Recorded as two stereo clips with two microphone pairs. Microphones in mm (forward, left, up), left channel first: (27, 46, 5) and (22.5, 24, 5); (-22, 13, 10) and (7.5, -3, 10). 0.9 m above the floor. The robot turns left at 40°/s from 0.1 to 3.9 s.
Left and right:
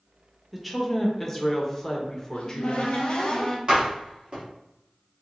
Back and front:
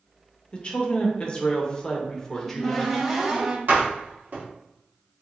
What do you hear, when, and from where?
0.5 s a woman speaking: 165° left, 0.7 m; by 2.9 s 65° left, 0.7 m
2.3 s a cupboard door: 80° left, 0.7 m; by 3.6 s 30° left, 0.7 m
3.7 s a door slam: 50° right, 1.0 m; by 4.4 s 60° right, 1.0 m